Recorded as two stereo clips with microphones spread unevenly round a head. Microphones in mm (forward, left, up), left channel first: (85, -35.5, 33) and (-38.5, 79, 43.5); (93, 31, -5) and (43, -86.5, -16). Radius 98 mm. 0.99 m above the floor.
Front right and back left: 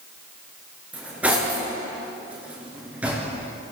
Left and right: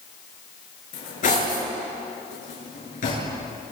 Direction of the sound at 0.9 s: 55° left.